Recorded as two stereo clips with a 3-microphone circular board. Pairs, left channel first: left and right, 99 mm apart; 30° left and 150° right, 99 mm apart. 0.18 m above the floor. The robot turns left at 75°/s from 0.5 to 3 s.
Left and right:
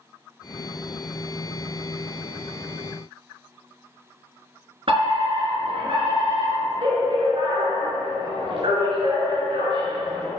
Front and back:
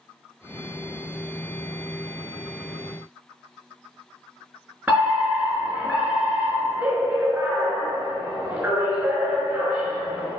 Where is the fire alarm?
80° right, 4 m.